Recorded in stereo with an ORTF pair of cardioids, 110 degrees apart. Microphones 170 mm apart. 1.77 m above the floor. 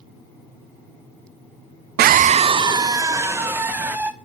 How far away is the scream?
About 0.6 m.